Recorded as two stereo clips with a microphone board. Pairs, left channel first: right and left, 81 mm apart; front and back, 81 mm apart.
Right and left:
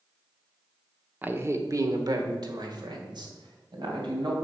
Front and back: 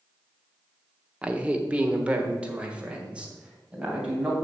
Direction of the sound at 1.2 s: 125° left.